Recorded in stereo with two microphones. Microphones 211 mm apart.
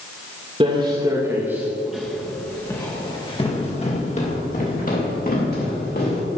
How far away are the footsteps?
About 2 m.